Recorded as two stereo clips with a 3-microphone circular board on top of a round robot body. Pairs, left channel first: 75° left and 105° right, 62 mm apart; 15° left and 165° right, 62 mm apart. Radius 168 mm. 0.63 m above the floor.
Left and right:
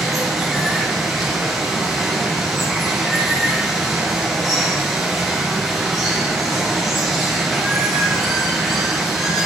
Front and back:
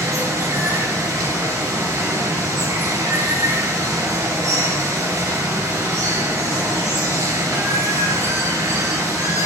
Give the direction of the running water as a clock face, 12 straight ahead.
7 o'clock.